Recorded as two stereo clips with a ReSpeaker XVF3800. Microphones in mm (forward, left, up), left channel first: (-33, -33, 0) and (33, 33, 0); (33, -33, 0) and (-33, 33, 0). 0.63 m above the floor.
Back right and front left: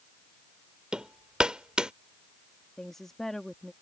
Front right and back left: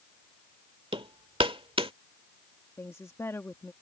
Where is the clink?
I don't hear a clink.